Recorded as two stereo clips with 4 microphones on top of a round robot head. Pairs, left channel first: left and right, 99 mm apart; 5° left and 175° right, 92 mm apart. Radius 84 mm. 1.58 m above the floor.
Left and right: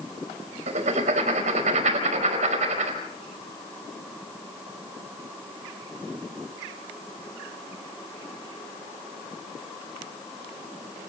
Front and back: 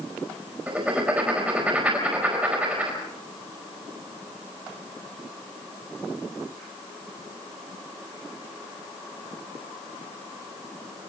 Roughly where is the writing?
Right.